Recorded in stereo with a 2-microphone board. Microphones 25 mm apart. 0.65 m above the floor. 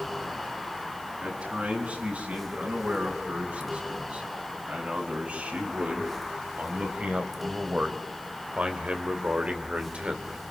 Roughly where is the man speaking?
Right.